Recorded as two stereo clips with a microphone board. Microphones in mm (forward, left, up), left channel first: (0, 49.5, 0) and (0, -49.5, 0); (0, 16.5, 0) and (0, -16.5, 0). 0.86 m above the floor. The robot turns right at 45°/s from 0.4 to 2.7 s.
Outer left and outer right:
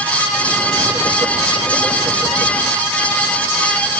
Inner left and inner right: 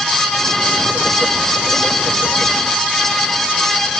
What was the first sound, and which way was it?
Only background noise.